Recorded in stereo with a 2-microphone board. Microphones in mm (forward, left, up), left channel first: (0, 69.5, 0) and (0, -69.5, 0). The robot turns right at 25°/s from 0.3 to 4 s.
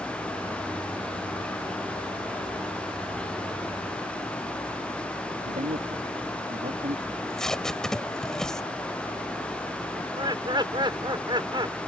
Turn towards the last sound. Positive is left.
turn(degrees=-30)  # may be behind; listen again after turning